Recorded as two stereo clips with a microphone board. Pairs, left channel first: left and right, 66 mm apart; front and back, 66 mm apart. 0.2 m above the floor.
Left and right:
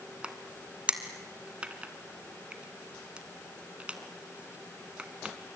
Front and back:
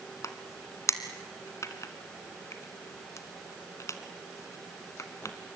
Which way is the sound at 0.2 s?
20° right.